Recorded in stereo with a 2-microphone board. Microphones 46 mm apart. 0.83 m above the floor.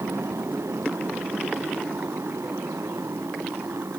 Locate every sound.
0.0 s a motorcycle: 85° right; by 4.0 s 90° right